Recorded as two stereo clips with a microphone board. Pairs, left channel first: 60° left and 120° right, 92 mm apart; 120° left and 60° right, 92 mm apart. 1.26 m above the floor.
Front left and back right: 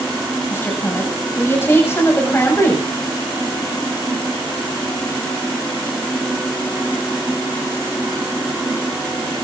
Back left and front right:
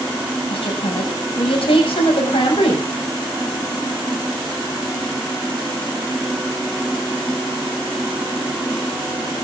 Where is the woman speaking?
125° left, 7 m.